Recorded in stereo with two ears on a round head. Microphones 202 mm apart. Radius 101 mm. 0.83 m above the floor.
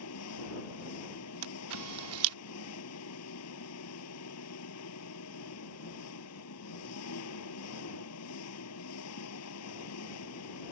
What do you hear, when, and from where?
0.0 s an engine running: 85° left
1.4 s a camera shutter: 75° right (ahead or behind)